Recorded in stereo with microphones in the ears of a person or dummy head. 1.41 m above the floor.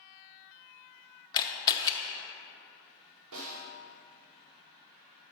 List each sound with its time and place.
1.3 s a camera shutter: 25° left (ahead or behind), 0.7 m
3.3 s a snare drum: 80° right, 1.2 m